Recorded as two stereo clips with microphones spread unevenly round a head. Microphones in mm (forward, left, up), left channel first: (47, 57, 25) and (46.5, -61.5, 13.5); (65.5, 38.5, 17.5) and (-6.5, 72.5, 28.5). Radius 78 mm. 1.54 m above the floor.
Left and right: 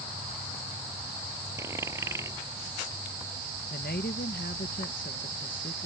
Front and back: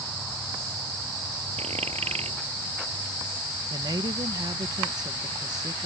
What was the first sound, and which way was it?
A dropped coin, 165° right.